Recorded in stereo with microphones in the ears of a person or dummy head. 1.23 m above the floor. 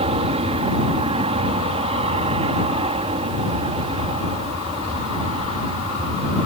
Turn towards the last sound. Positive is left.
turn(degrees=-30)  # may be behind; listen again after turning